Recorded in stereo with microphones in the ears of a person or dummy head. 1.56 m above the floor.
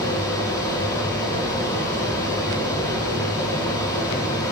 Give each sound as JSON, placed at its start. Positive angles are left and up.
{"t": 0.0, "sound": "a fan", "side_deg": 20, "distance_m": 1.5}